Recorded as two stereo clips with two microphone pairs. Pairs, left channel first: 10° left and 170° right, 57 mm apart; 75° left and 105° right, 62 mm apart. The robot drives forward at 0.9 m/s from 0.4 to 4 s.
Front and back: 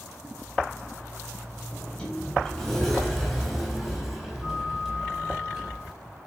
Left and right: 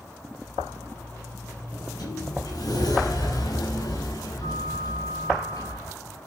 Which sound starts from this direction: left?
A sliding door, at 1.7 s.